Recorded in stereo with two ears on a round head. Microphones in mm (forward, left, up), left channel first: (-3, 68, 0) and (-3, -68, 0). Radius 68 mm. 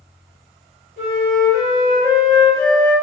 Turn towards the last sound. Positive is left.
turn(degrees=-55)  # may be behind; listen again after turning